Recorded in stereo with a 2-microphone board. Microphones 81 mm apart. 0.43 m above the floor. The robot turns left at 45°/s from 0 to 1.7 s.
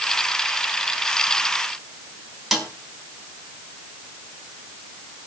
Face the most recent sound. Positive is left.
turn(degrees=0)  # may be behind; listen again after turning